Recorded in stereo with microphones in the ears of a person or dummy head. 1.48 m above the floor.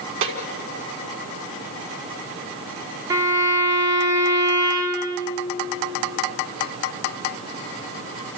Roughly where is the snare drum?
Right.